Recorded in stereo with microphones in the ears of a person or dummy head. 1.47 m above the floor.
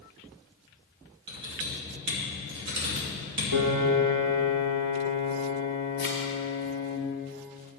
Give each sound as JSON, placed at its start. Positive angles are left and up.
{"t": 1.3, "sound": "typing on a keyboard", "side_deg": -60, "distance_m": 3.0}
{"t": 3.5, "sound": "a piano", "side_deg": -60, "distance_m": 1.5}
{"t": 6.0, "sound": "a thud", "side_deg": -20, "distance_m": 1.0}